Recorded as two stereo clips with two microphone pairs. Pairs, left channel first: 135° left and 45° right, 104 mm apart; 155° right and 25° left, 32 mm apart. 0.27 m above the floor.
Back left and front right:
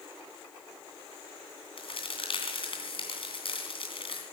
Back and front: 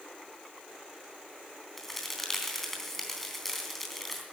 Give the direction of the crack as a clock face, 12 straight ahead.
8 o'clock.